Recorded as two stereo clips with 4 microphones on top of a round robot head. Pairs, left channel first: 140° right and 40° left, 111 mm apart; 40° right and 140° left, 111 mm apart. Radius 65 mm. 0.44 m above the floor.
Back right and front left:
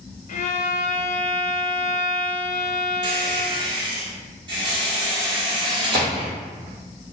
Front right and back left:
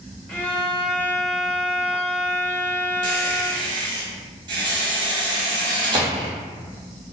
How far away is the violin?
About 0.6 m.